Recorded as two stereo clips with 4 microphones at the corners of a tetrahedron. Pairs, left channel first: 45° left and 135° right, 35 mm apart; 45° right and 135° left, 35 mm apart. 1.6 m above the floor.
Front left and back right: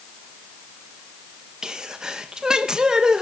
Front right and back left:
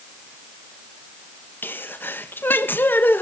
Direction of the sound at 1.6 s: 70° right.